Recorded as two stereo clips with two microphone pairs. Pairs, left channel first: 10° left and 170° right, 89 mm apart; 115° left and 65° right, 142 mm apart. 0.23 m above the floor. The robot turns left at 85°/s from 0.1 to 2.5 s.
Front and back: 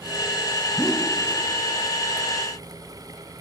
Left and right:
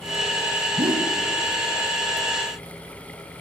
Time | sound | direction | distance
0.8 | a whoosh | 50° right | 0.6 m